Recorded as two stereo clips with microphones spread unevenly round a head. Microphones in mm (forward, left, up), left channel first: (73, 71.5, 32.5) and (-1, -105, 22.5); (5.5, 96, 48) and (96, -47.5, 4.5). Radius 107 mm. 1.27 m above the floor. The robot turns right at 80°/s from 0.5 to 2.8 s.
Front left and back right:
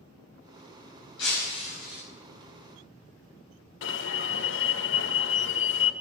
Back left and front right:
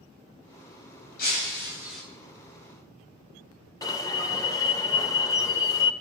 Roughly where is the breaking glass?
Left.